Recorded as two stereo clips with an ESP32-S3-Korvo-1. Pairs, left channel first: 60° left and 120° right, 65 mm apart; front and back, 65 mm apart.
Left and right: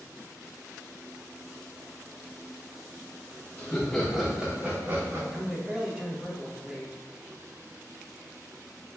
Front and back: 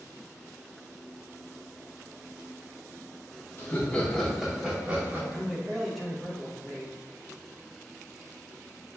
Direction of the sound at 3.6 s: 5° left.